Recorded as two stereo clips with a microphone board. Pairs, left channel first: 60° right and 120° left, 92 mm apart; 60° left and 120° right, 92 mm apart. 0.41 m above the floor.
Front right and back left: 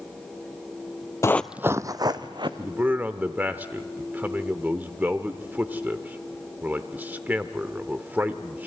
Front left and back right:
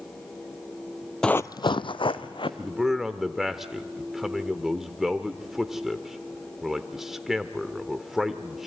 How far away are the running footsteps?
About 0.5 m.